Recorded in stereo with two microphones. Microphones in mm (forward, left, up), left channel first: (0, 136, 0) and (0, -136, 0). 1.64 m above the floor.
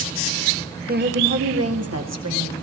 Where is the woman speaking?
35° right (ahead or behind), 1.0 m; by 2.5 s 75° right (ahead or behind), 2.5 m.